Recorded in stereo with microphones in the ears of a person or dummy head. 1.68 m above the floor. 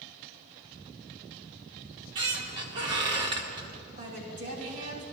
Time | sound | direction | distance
1.8 | a squeak | 20° right (ahead or behind) | 0.8 m
4.0 | a woman speaking | 50° right (ahead or behind) | 3.5 m